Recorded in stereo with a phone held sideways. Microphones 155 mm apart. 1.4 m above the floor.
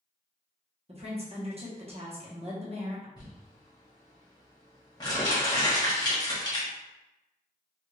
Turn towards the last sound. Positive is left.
turn(degrees=25)  # may be behind; listen again after turning